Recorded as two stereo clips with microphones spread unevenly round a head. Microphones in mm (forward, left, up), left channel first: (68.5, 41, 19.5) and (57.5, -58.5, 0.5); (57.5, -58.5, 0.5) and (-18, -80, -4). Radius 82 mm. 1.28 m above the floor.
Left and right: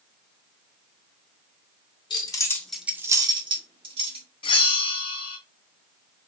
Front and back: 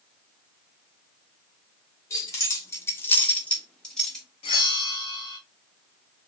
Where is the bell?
50° left, 0.6 m.